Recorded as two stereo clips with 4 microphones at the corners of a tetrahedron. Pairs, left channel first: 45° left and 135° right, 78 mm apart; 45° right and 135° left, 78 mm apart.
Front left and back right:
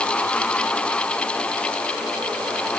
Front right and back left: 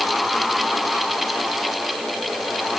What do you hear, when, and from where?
Only background noise.